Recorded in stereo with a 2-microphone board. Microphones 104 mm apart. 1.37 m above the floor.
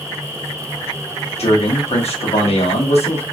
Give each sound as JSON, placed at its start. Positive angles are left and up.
{"t": 1.4, "sound": "a man speaking", "side_deg": 85, "distance_m": 1.0}